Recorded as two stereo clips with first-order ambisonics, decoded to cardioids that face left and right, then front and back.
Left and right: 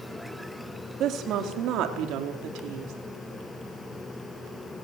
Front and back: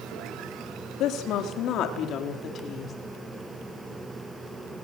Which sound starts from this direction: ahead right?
A woman speaking, at 1.0 s.